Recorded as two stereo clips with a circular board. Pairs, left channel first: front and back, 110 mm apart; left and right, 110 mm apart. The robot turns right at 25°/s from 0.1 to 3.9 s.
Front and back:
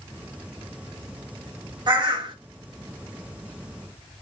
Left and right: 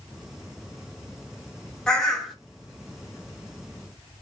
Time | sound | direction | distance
1.9 | a bird | 170° left | 0.7 m